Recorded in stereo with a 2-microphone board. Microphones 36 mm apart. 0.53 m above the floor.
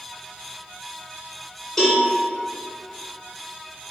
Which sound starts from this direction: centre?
A cowbell, at 1.8 s.